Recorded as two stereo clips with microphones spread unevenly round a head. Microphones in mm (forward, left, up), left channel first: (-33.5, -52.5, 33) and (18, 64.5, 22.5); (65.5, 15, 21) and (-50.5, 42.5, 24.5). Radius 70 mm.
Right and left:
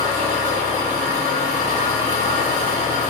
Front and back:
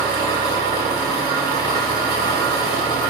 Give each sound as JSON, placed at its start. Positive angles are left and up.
{"t": 0.0, "sound": "an engine running", "azimuth_deg": 45, "distance_m": 1.5}